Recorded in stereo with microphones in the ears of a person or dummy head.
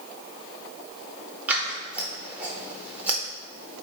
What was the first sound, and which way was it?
Scissors, 5° right (ahead or behind).